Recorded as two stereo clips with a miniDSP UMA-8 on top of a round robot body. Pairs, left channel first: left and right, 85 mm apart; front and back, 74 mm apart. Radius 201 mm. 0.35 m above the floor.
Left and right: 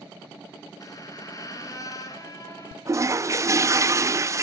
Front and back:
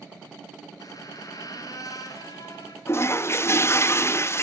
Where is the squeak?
40° left, 4.5 m.